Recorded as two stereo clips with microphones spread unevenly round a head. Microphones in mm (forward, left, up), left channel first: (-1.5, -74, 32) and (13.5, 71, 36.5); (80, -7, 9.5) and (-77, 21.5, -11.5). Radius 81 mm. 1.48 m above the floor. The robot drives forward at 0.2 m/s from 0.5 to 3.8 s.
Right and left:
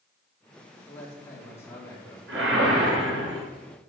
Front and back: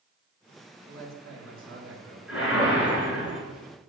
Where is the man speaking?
170° right, 3.5 m; by 2.2 s 175° right, 3.5 m.